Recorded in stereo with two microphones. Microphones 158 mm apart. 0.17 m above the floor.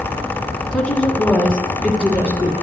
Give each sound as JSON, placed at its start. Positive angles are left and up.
{"t": 0.7, "sound": "a woman speaking", "side_deg": 5, "distance_m": 1.4}